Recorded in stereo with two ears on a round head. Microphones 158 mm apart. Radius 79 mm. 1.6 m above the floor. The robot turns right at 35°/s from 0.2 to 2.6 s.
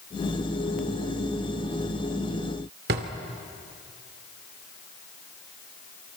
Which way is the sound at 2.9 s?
60° right (ahead or behind).